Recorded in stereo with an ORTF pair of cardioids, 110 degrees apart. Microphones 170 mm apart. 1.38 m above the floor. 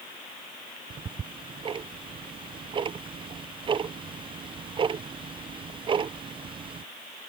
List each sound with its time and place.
0.9 s ticking: 30° right